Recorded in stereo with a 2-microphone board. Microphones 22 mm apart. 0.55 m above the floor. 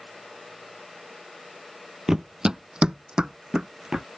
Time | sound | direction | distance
2.1 | running footsteps | 20° right (ahead or behind) | ?